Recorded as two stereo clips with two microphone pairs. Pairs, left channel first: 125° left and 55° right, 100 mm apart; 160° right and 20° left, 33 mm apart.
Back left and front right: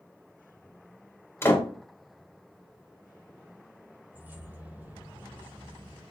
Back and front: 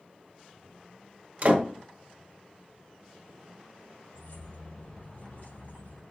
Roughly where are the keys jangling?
Behind right.